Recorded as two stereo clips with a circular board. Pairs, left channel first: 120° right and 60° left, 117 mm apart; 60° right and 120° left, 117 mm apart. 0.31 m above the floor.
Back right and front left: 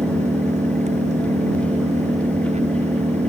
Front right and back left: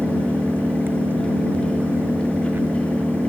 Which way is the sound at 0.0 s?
45° left.